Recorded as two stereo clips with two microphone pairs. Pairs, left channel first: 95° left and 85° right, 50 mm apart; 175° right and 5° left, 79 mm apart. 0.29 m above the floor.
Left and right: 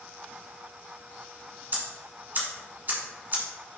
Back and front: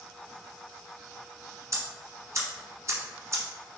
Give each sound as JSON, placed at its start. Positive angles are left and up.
{"t": 1.7, "sound": "ticking", "azimuth_deg": -40, "distance_m": 1.4}